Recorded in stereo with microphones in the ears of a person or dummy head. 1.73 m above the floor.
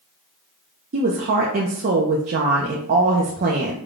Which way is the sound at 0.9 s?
40° right (ahead or behind).